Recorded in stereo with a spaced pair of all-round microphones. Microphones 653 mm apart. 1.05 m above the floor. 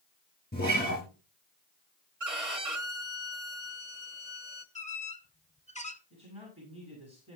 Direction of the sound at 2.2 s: 55° right (ahead or behind).